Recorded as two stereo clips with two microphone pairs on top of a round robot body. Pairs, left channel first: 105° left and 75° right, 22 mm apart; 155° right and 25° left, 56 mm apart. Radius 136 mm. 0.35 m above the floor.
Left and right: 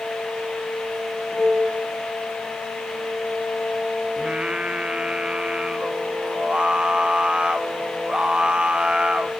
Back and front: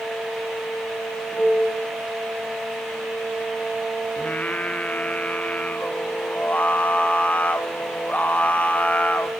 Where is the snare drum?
I don't hear a snare drum.